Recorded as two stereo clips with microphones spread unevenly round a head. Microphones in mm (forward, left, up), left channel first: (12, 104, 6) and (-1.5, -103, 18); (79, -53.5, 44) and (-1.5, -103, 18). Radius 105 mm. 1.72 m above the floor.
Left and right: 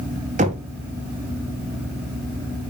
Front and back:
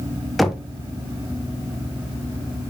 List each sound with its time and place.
0.4 s knocking: 45° right, 1.0 m